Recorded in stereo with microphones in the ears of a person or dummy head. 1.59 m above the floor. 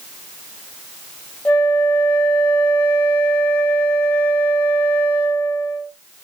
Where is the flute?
10° left (ahead or behind), 1.2 m.